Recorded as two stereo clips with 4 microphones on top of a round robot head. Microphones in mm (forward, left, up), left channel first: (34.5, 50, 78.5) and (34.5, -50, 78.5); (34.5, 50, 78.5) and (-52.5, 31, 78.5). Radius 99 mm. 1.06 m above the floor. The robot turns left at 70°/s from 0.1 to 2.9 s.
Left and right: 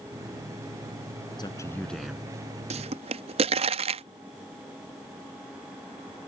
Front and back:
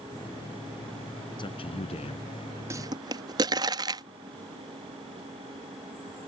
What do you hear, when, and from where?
1.4 s a man speaking: 45° left; by 2.6 s 40° right
2.7 s a pop: 105° right; by 4.0 s 115° right